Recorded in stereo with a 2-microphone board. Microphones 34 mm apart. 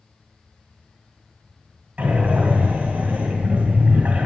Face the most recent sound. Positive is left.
turn(degrees=-40)  # may be behind; listen again after turning